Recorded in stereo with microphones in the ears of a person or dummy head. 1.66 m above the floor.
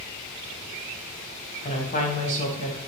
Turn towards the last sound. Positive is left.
turn(degrees=40)  # may be behind; listen again after turning